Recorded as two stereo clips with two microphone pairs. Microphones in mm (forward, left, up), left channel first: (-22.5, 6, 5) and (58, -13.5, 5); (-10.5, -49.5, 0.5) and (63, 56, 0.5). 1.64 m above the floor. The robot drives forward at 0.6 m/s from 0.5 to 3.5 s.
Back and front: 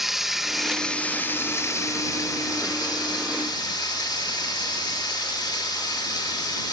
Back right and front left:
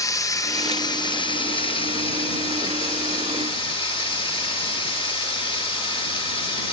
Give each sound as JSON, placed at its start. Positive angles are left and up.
{"t": 0.0, "sound": "running water", "azimuth_deg": -95, "distance_m": 0.9}